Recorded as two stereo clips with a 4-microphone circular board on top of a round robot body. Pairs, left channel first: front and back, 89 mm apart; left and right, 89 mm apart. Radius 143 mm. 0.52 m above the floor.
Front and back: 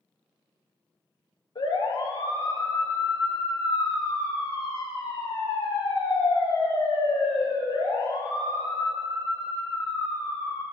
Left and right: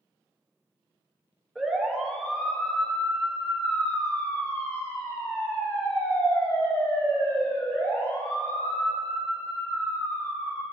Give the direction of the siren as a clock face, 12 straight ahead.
12 o'clock.